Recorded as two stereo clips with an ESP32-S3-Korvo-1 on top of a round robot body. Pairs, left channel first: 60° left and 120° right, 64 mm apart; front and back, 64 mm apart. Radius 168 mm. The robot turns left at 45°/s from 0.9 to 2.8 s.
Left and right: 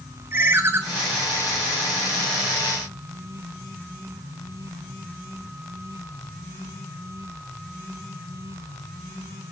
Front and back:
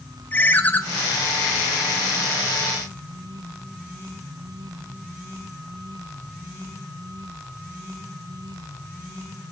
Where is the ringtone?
65° right, 0.7 m.